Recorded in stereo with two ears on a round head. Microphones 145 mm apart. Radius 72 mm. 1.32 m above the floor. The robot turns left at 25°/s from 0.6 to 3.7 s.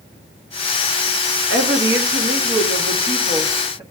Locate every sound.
1.5 s a woman speaking: 100° right, 1.3 m; by 3.8 s 155° right, 1.3 m